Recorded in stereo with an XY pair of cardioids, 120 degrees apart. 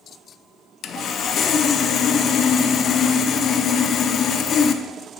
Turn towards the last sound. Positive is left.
turn(degrees=50)